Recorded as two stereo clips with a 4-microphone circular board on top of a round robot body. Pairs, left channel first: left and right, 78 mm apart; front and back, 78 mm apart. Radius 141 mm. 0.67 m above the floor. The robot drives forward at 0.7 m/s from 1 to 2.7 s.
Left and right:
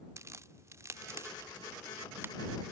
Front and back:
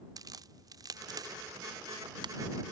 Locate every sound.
0.2 s a crack: 145° right; by 2.3 s 155° right